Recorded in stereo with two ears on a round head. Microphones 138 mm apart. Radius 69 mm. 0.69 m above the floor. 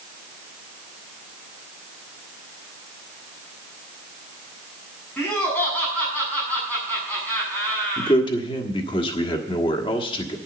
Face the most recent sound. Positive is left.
turn(degrees=30)  # may be behind; listen again after turning